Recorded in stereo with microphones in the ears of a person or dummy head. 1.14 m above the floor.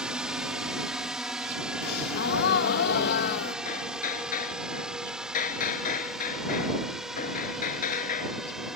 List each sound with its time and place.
0.0 s a drone: centre (ahead or behind)
1.8 s a gasp: 55° left (ahead or behind)
3.6 s hammering: 50° left (ahead or behind)